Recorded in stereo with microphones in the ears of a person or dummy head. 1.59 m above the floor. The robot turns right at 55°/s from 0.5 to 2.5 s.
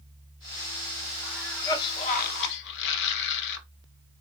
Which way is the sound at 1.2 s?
5° right.